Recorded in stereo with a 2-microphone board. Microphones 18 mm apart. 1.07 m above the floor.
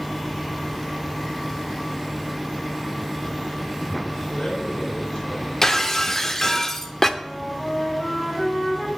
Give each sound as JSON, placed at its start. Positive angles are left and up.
{"t": 4.3, "sound": "a man speaking", "side_deg": 75, "distance_m": 5.5}
{"t": 5.6, "sound": "breaking glass", "side_deg": 20, "distance_m": 0.7}
{"t": 7.2, "sound": "a flute", "side_deg": 15, "distance_m": 2.5}